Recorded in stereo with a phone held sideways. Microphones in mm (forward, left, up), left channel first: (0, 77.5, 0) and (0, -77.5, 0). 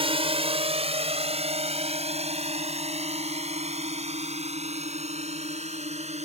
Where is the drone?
35° right (ahead or behind); by 6.2 s 45° right (ahead or behind).